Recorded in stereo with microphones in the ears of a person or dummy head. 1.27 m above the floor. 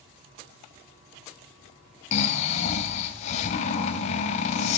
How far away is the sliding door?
I don't hear a sliding door.